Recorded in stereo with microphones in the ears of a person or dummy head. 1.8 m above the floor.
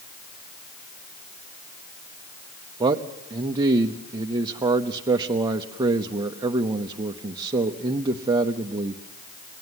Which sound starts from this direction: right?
A man speaking, at 2.8 s.